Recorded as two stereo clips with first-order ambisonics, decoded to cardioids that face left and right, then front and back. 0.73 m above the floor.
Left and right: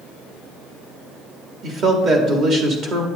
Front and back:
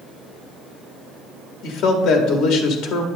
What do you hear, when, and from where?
1.6 s a man speaking: 35° right, 1.4 m